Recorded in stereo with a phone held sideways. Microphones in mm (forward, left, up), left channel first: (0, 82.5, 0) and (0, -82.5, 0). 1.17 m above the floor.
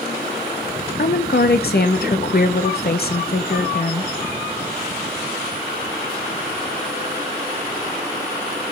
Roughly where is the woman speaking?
Left.